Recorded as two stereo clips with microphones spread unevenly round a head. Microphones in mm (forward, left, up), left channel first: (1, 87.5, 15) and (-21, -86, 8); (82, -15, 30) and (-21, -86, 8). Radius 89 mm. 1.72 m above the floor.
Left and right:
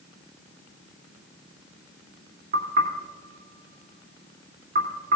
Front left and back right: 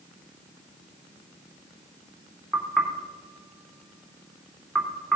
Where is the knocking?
45° right, 3 m.